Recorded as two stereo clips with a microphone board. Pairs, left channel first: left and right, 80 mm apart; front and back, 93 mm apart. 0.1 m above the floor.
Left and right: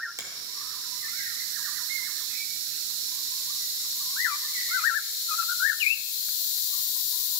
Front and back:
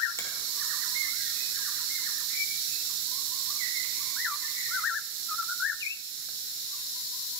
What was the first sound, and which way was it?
A finger snap, 50° right.